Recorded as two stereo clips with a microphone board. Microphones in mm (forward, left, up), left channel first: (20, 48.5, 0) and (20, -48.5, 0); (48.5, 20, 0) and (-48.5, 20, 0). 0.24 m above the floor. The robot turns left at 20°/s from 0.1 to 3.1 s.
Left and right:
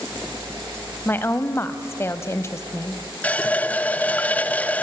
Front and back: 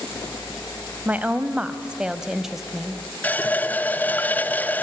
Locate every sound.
1.1 s a woman speaking: 130° left, 1.0 m; by 3.0 s 90° left, 1.0 m
3.2 s a running tap: 40° left, 0.6 m